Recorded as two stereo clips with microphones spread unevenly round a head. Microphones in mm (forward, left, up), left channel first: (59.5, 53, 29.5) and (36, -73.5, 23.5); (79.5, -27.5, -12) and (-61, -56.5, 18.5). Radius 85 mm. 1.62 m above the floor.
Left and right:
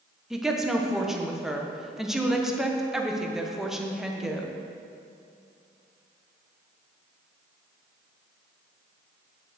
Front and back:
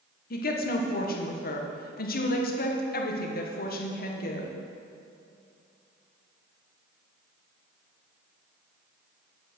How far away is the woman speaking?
About 1.4 m.